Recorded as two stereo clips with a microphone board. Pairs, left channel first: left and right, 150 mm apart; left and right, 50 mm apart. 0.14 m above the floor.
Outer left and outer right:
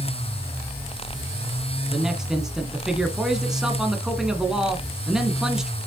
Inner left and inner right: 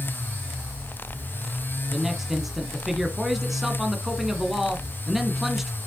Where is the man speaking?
5° right (ahead or behind), 1.4 m.